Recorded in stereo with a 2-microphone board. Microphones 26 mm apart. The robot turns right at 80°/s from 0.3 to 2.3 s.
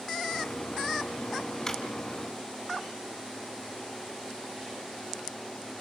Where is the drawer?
15° left (ahead or behind), 4.5 m; by 1.8 s 30° left (ahead or behind), 4.5 m.